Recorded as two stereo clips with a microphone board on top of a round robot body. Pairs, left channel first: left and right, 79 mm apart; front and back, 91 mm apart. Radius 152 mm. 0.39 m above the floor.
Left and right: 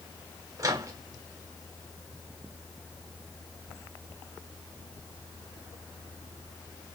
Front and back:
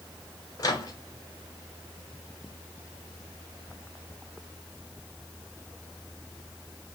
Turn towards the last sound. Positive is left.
turn(degrees=-50)